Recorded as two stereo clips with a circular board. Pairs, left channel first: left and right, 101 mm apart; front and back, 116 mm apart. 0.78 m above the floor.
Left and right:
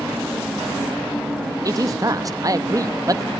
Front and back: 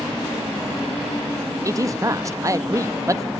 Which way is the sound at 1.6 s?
130° right.